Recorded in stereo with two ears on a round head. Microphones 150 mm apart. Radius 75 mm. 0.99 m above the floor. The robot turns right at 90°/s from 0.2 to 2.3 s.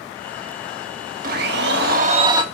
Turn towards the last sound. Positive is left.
turn(degrees=-25)